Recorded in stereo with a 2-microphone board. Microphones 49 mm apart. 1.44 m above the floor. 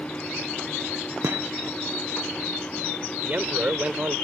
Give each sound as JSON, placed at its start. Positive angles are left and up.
{"t": 1.2, "sound": "a gunshot", "side_deg": -70}
{"t": 3.2, "sound": "a man speaking", "side_deg": -35}